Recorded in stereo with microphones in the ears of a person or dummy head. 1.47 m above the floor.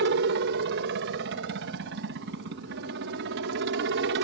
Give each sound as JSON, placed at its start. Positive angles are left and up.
{"t": 0.0, "sound": "a helicopter", "side_deg": -60}